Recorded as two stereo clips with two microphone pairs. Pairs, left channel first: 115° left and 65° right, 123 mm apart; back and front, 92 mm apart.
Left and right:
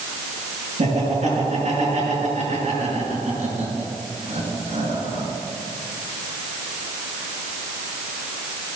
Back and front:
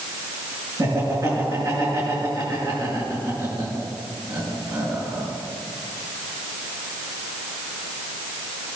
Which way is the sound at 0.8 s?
45° right.